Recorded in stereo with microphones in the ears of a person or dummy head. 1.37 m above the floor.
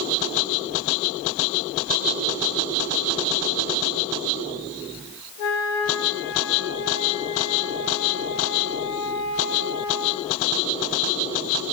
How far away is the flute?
About 3 m.